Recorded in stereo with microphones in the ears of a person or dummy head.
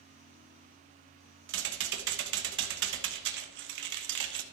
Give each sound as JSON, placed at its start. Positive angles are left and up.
{"t": 1.5, "sound": "typing on a keyboard", "side_deg": -65, "distance_m": 1.1}